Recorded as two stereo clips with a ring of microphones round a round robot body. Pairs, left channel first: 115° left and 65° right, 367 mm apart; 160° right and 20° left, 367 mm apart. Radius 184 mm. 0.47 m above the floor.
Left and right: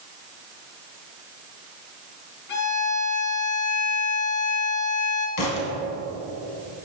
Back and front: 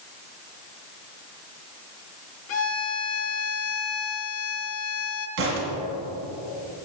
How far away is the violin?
About 1.3 m.